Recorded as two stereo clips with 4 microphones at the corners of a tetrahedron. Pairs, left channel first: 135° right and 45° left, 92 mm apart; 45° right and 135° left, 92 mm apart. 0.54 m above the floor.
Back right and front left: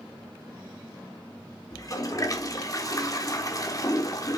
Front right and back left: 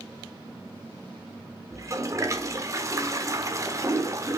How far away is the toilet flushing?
About 1.2 m.